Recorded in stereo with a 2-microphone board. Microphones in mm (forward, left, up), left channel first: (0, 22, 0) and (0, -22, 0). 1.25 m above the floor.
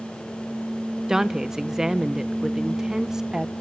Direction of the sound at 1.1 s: 10° right (ahead or behind).